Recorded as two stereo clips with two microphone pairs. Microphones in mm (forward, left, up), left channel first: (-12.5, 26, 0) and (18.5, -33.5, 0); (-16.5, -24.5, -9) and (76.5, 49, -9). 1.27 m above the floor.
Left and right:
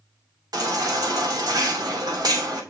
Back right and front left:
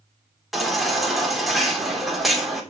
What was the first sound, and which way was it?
A baby crying, 50° right.